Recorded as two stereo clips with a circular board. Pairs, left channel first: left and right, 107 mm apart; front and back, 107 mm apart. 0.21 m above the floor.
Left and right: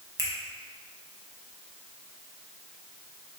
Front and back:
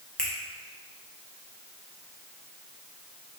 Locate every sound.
0.2 s a finger snap: 75° right, 0.9 m